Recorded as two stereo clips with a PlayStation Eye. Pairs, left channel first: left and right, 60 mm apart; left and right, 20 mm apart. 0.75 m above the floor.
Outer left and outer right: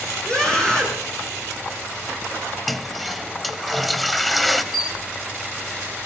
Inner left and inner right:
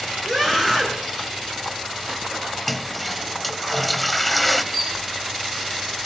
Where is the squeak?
5° right (ahead or behind), 9.5 m.